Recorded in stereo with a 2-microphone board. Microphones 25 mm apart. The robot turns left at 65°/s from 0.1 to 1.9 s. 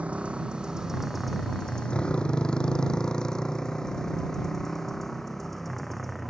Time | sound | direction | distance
0.0 | a motorcycle | 55° right (ahead or behind) | ?